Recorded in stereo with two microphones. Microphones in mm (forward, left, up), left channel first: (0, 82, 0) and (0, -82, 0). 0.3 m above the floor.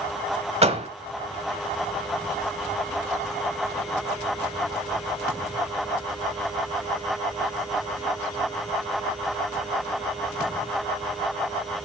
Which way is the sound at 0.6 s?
40° right (ahead or behind).